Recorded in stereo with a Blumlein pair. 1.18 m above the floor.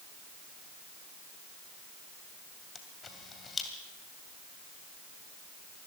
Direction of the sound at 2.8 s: 15° left.